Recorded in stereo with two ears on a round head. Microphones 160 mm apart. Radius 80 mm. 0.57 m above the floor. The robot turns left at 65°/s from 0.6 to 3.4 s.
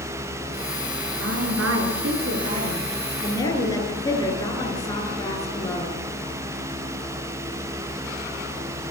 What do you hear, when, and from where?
1.2 s a woman speaking: 55° right, 9.5 m; by 6.0 s 160° left, 9.5 m